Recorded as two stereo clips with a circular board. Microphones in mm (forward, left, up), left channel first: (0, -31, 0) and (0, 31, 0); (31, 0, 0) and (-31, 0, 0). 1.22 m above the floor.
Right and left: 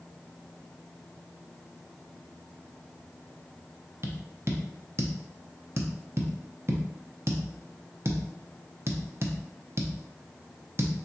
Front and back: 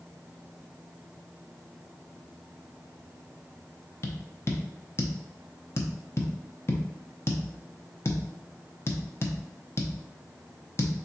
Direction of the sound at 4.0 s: 45° left.